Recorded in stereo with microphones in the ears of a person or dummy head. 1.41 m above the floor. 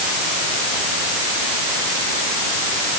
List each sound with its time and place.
Only background noise.